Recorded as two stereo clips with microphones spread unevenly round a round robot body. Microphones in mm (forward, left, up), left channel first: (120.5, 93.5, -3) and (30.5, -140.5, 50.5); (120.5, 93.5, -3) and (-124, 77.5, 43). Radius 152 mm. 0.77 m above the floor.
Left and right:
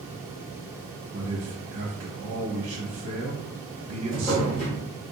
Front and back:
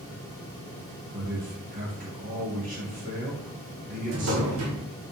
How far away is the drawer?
About 0.8 m.